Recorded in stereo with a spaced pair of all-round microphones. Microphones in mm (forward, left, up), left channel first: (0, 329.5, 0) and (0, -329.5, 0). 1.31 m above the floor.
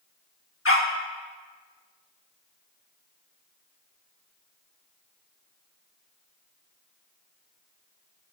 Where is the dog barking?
20° left (ahead or behind), 1.0 m.